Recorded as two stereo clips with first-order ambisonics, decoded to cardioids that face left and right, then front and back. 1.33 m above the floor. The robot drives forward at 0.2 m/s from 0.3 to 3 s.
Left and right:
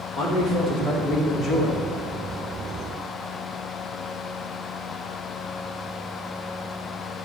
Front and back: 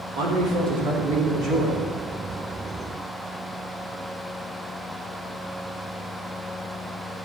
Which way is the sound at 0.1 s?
150° left.